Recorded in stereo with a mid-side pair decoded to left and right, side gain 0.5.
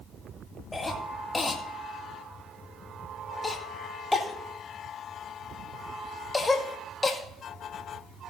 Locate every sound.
0.7 s a cough: 20° left, 2 m